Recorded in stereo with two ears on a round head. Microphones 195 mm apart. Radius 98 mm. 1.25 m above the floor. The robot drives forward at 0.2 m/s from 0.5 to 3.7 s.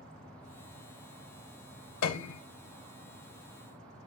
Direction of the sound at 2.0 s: 80° left.